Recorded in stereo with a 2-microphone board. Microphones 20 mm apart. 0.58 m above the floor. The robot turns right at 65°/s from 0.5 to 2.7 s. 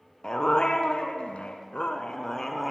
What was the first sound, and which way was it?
A dog barking, 35° left.